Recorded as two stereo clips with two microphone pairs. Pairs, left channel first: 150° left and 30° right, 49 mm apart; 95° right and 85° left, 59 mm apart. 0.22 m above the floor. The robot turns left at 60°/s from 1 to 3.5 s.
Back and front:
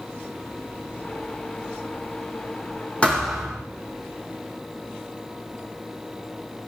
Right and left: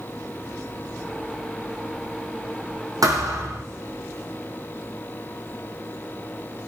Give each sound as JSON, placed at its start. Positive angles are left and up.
{"t": 3.0, "sound": "a thud", "azimuth_deg": 80, "distance_m": 4.5}